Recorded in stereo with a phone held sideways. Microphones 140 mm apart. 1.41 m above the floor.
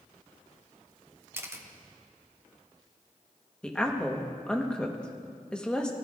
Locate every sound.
1.3 s a camera shutter: 15° right (ahead or behind), 0.7 m
3.6 s a woman speaking: 5° left (ahead or behind), 1.1 m